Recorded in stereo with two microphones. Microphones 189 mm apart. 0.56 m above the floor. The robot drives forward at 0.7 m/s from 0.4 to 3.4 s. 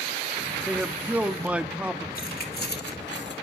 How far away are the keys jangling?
About 1.9 m.